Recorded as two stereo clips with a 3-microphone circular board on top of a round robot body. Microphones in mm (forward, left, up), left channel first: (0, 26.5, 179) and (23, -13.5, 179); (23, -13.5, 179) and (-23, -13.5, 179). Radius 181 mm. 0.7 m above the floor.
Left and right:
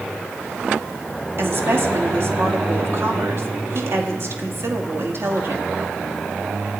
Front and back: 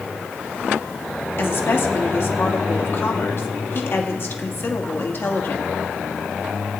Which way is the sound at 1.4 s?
35° right.